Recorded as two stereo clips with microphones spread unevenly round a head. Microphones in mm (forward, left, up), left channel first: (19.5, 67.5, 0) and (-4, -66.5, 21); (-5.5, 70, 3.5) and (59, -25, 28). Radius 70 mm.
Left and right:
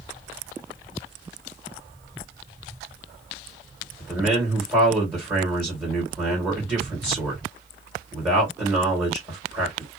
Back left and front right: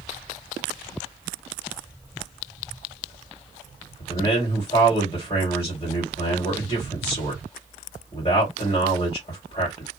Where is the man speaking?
Straight behind, 1.6 m.